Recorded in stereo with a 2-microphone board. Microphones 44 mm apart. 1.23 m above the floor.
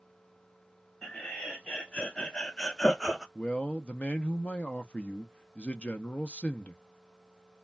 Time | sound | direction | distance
1.0 | laughter | 15° left (ahead or behind) | 1.4 m
3.4 | a man speaking | 30° left (ahead or behind) | 0.5 m